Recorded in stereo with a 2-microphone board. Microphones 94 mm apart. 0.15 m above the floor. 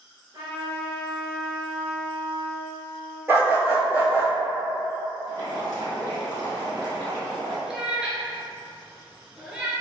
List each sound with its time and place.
0.3 s a trumpet: 55° right (ahead or behind), 1.2 m
3.3 s a dog barking: 25° right (ahead or behind), 1.1 m
5.3 s boiling: 45° right (ahead or behind), 1.2 m
7.7 s a cat meowing: 10° right (ahead or behind), 0.6 m